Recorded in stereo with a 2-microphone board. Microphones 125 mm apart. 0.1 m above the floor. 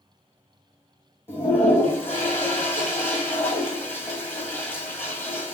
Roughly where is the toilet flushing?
Centre.